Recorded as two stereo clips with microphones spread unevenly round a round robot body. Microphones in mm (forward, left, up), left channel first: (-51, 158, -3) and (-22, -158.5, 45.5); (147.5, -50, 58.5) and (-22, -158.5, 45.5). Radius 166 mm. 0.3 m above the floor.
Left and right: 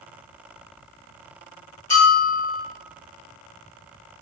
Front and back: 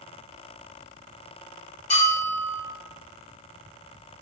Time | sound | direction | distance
1.9 | a bell | 65° left | 1.0 m